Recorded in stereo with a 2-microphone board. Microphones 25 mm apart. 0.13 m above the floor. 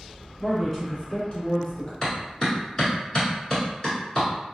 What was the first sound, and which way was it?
A man speaking, 5° left (ahead or behind).